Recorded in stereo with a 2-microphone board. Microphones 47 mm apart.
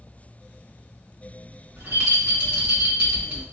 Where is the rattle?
40° right (ahead or behind), 1.7 m.